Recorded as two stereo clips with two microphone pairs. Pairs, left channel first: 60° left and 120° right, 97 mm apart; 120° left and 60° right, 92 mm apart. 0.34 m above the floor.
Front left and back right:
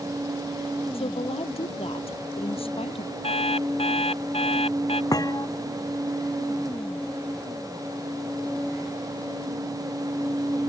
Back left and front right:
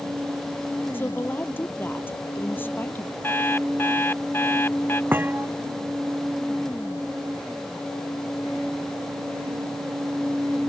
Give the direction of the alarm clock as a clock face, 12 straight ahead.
10 o'clock.